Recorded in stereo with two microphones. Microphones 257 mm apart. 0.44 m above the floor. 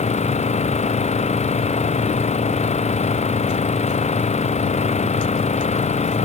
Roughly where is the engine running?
Left.